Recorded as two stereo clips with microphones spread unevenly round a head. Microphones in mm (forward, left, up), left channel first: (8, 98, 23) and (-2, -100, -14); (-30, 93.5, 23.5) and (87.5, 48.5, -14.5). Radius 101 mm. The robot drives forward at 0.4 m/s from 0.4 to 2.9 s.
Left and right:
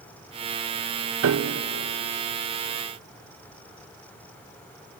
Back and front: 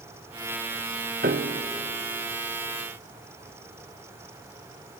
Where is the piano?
70° right, 0.8 m; by 1.6 s 85° right, 0.8 m.